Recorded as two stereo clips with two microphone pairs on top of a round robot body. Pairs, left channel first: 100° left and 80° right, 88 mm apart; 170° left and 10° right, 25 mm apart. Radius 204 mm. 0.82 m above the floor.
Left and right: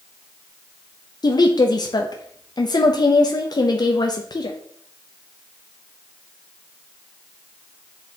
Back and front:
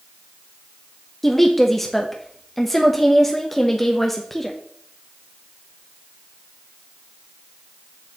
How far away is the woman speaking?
About 0.9 m.